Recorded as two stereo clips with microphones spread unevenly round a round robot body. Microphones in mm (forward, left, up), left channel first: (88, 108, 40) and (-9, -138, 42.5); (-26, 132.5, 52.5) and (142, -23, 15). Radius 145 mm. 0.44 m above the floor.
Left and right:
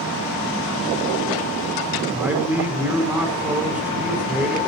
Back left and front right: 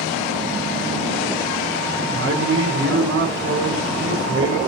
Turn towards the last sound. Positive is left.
turn(degrees=-30)